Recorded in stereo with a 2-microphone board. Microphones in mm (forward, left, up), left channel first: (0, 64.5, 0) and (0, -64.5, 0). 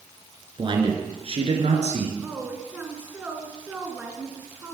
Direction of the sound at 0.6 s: 40° right (ahead or behind).